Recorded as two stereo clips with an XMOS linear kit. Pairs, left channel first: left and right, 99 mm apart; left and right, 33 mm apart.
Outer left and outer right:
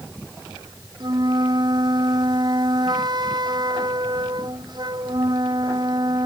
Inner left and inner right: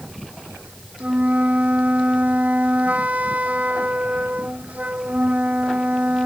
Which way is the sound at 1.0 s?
50° right (ahead or behind).